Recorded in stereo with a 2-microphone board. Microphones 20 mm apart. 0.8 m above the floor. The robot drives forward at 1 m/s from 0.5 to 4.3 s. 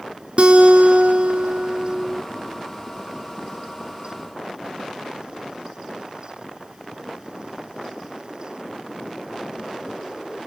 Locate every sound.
0.4 s a guitar: 50° right (ahead or behind), 1.8 m; by 2.2 s 55° right (ahead or behind), 1.7 m